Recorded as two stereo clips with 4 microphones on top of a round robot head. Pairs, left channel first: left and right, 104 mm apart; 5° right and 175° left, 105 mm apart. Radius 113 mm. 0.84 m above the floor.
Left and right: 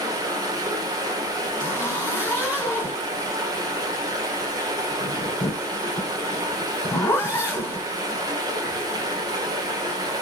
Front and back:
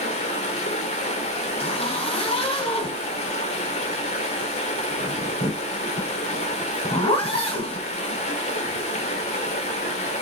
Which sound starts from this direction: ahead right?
Running water, at 0.0 s.